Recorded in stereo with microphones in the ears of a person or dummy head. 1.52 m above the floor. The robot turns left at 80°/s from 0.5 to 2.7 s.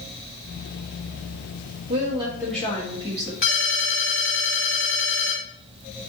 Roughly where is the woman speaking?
Behind right.